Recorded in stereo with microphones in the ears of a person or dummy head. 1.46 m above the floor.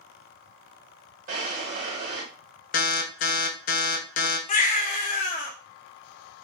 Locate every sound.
1.3 s a drawer: 45° right (ahead or behind), 1.6 m
2.7 s an alarm: 45° left (ahead or behind), 0.6 m
4.5 s a baby crying: 40° left (ahead or behind), 0.7 m